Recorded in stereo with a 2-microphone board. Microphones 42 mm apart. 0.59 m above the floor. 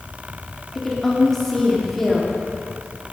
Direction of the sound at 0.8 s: 5° left (ahead or behind).